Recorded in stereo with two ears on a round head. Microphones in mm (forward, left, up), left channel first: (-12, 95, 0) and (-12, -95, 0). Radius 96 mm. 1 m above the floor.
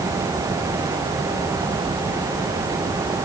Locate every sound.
Only background noise.